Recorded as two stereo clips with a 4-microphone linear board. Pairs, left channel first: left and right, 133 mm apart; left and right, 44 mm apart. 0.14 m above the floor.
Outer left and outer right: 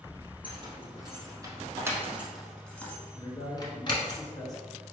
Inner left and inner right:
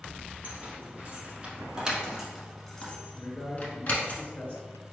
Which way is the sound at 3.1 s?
30° left (ahead or behind).